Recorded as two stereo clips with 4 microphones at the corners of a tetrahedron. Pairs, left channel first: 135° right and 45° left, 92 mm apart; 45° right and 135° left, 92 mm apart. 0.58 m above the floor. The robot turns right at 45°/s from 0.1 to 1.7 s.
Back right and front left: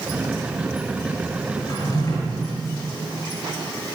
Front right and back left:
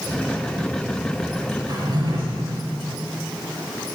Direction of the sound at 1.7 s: 175° left.